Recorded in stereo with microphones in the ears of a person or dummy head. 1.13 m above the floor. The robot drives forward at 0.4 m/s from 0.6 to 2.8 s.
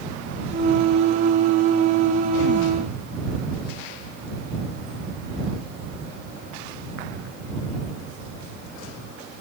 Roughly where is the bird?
I don't hear a bird.